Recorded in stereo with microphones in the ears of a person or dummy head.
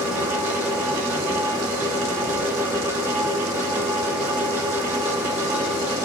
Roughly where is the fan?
Centre.